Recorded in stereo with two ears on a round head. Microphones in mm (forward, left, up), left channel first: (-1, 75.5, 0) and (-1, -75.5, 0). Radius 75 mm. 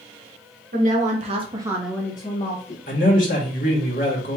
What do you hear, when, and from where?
0.7 s a woman speaking: 55° right (ahead or behind), 1.6 m; by 2.8 s 55° left (ahead or behind), 1.2 m
2.9 s a man speaking: 55° left (ahead or behind), 1.9 m